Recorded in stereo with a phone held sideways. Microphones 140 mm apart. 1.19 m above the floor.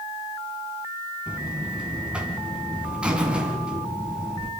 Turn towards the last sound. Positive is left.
turn(degrees=-5)  # may be behind; listen again after turning